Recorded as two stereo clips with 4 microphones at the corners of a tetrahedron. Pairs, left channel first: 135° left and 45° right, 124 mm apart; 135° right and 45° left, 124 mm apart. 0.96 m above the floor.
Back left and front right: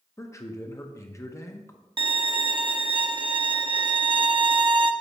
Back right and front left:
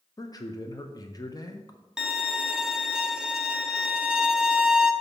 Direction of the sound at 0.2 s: 175° right.